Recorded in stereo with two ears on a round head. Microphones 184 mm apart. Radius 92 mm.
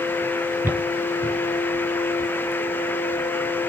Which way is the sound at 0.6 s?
10° right (ahead or behind).